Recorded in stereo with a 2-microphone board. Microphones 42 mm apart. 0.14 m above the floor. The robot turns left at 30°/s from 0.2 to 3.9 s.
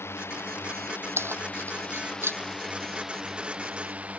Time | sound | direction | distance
0.0 | a drone | 75° left | ?
1.2 | keys jangling | 75° right (ahead or behind) | ?